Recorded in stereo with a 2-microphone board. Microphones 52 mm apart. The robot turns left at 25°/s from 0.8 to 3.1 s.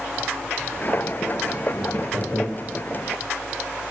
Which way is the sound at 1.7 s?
45° left (ahead or behind).